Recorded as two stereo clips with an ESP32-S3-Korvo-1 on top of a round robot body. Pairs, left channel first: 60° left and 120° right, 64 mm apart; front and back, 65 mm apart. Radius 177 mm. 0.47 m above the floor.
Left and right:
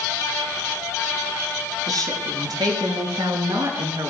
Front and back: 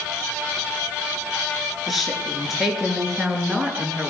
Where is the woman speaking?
90° right, 8 m; by 4.1 s 105° right, 7 m.